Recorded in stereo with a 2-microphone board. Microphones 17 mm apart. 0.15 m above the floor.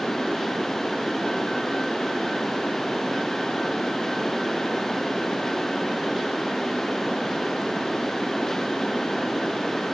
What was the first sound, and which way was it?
Only background noise.